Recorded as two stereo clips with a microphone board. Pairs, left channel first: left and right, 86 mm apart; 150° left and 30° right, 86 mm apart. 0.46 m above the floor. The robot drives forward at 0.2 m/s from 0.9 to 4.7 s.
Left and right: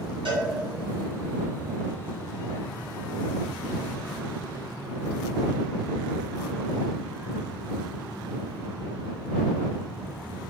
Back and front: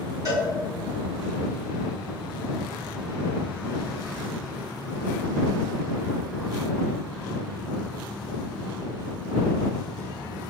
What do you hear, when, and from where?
0.2 s a cowbell: 80° right, 1.7 m